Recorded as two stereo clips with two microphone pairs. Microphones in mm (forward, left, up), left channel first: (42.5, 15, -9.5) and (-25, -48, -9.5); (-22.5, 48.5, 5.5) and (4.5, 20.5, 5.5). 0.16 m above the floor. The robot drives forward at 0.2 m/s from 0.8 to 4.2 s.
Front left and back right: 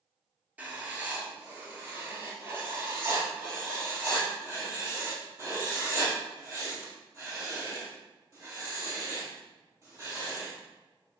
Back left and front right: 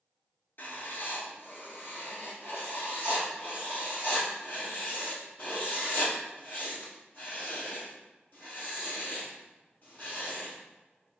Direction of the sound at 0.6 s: 150° left.